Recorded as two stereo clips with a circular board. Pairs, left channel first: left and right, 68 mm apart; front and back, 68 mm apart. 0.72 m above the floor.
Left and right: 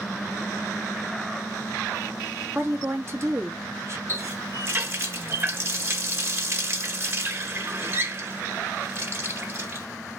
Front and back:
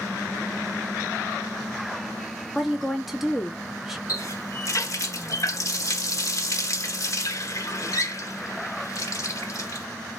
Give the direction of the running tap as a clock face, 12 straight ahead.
1 o'clock.